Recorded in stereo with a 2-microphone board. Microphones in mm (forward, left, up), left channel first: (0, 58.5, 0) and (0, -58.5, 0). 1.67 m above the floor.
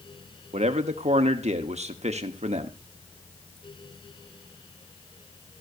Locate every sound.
0.5 s a man speaking: 70° right (ahead or behind), 1.2 m